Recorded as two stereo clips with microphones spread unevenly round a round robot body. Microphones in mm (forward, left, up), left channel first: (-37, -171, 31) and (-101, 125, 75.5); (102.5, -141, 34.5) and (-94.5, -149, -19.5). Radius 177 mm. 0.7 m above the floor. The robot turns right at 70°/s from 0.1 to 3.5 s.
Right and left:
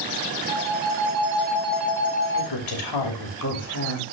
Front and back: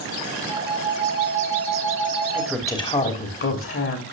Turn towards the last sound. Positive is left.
turn(degrees=-20)